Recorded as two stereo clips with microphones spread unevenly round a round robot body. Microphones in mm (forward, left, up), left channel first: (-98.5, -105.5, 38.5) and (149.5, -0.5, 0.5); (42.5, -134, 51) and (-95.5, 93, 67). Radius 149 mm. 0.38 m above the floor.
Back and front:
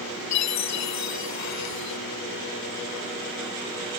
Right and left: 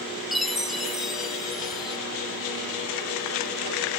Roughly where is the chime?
Behind right.